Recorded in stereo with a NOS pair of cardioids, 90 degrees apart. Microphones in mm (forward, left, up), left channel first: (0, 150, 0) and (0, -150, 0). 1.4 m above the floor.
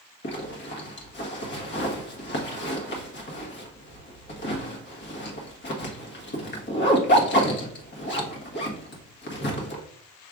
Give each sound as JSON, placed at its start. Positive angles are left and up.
{"t": 0.2, "sound": "a zipper", "azimuth_deg": 40, "distance_m": 1.3}